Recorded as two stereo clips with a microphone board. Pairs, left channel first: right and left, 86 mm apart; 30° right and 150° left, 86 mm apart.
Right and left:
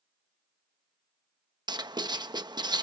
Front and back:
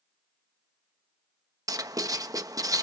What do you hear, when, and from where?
1.7 s writing: 110° left, 0.9 m